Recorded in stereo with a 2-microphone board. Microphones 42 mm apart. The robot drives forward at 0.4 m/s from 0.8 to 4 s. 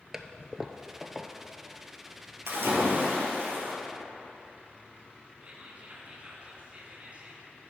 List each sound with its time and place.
0.1 s a toilet flushing: 10° right (ahead or behind), 0.5 m; by 1.3 s 5° right (ahead or behind), 0.7 m
2.5 s a splash: 75° right (ahead or behind), 2.0 m; by 3.8 s 65° right (ahead or behind), 2 m
5.4 s whispering: 35° right (ahead or behind), 2.0 m